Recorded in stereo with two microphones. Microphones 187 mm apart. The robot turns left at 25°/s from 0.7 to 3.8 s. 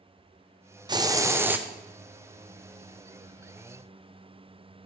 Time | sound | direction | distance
0.9 | a hiss | 25° right (ahead or behind) | 0.5 m